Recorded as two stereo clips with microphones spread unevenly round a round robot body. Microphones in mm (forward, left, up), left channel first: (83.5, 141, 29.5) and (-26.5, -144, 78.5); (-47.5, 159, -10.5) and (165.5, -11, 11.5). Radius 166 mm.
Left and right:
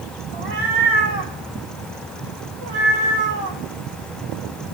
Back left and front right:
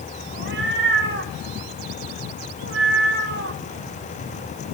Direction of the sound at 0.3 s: 95° right.